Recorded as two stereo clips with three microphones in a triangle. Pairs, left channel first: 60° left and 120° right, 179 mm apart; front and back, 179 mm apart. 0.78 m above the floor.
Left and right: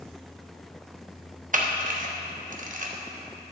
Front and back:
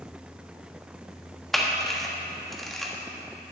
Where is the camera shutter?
90° right, 1.0 m.